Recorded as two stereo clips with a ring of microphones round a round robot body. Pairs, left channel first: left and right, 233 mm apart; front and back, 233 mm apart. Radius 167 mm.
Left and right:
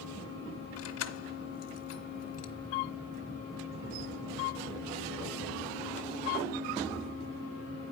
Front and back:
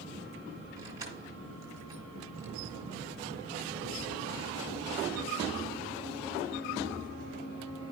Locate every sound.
0.8 s keys jangling: 100° left, 1.5 m